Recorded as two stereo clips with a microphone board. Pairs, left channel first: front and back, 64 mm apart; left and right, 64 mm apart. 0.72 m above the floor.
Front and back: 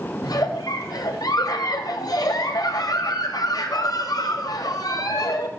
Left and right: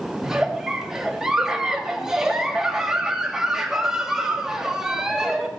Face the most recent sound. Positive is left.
turn(degrees=-10)